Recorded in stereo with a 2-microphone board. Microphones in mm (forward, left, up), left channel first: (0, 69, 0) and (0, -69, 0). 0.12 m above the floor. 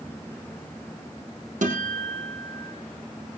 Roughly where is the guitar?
Right.